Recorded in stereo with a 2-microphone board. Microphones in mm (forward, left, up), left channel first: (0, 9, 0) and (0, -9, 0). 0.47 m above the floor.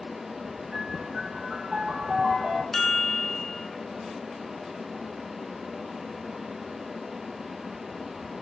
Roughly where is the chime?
Centre.